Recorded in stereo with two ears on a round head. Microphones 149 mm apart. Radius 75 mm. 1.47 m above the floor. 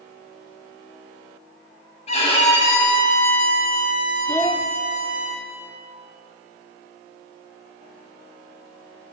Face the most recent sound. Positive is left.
turn(degrees=10)  # may be behind; listen again after turning